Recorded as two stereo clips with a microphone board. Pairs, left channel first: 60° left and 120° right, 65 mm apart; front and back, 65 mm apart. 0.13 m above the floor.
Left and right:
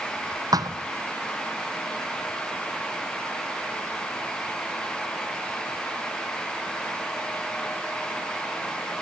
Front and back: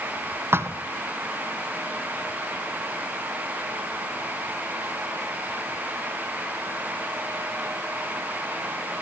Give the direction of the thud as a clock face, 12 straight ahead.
4 o'clock.